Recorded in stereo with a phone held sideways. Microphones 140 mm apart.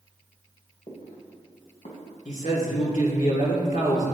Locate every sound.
0.9 s footsteps: 45° left (ahead or behind), 2.5 m; by 2.1 s 60° left (ahead or behind), 2.5 m
2.2 s a man speaking: 75° left (ahead or behind), 2 m